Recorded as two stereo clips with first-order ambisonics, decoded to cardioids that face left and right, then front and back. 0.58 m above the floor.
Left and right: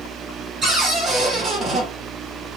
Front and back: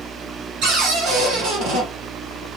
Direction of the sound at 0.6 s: 155° right.